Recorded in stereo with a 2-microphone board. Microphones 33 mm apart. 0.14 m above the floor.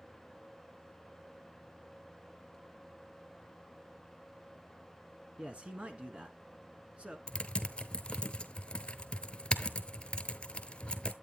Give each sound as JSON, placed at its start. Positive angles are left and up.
{"t": 5.4, "sound": "a man speaking", "side_deg": -35, "distance_m": 1.3}
{"t": 7.3, "sound": "typing on a keyboard", "side_deg": 30, "distance_m": 0.7}